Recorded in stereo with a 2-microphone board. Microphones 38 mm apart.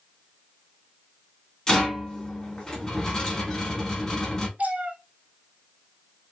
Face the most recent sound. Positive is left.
turn(degrees=-45)  # may be behind; listen again after turning